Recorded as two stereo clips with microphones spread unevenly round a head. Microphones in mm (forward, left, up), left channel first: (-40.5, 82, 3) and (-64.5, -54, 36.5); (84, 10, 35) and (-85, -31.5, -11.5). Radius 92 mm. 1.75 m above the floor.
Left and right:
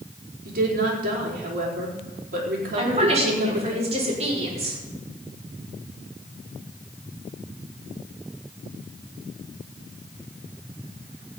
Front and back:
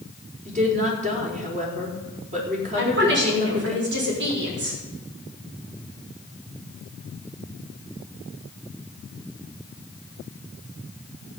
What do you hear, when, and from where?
0.5 s a woman speaking: 115° right, 5 m
2.8 s a woman speaking: 140° right, 6 m